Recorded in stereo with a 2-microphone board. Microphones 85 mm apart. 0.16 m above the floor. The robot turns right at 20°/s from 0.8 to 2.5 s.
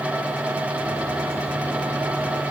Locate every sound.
Only background noise.